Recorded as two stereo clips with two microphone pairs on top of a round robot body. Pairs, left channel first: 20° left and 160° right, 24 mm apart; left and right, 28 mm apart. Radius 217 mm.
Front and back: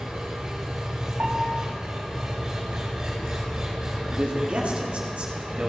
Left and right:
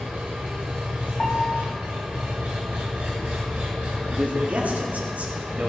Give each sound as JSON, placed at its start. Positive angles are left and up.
{"t": 0.0, "sound": "an engine running", "azimuth_deg": -105, "distance_m": 0.8}
{"t": 1.2, "sound": "a piano", "azimuth_deg": 160, "distance_m": 1.1}
{"t": 4.0, "sound": "a man speaking", "azimuth_deg": -120, "distance_m": 2.5}